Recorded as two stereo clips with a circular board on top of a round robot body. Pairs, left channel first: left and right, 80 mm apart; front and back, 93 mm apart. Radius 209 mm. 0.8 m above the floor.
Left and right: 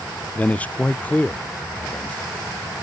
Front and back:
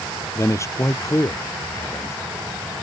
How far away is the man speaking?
About 0.6 m.